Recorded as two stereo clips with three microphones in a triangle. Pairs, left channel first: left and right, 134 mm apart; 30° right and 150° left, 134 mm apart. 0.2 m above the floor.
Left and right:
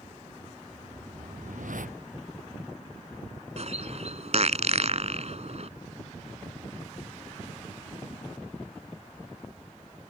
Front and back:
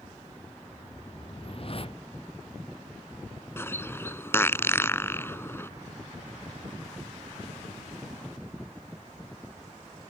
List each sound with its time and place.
0.7 s a whoosh: 75° right
3.6 s a bird: 100° right